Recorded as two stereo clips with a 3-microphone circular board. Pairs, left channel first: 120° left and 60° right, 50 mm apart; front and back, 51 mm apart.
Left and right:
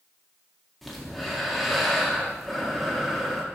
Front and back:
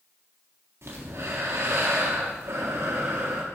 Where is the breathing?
150° right, 1.5 m.